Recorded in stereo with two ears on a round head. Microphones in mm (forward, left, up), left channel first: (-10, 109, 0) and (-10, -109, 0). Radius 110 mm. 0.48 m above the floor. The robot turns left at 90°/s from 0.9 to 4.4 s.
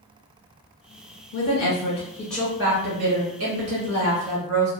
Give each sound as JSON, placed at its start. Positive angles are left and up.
{"t": 1.3, "sound": "a woman speaking", "azimuth_deg": 95, "distance_m": 1.6}